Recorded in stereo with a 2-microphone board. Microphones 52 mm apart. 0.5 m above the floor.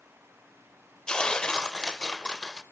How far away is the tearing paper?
About 0.6 m.